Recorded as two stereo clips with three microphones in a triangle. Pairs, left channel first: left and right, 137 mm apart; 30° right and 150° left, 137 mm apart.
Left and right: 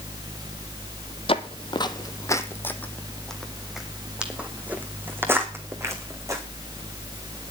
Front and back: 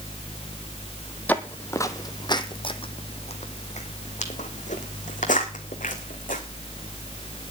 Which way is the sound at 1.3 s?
50° left.